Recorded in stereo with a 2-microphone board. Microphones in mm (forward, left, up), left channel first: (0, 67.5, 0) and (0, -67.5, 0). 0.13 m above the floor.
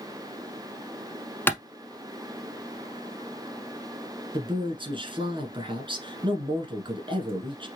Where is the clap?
15° left (ahead or behind), 0.8 m.